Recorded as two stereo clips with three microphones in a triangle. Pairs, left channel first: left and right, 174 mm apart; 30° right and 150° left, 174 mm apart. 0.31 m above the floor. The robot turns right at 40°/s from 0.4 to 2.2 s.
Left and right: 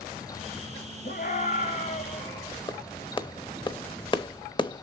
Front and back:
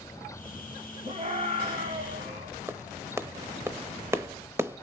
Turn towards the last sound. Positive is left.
turn(degrees=95)